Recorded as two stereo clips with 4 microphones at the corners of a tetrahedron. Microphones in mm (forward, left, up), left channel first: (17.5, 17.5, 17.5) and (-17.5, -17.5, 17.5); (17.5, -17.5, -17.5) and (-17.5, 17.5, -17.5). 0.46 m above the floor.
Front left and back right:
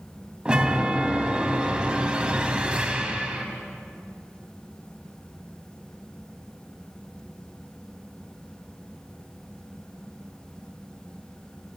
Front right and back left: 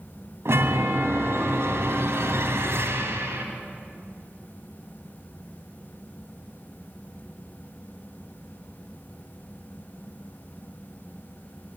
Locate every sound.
0.5 s a chime: 160° left, 2.5 m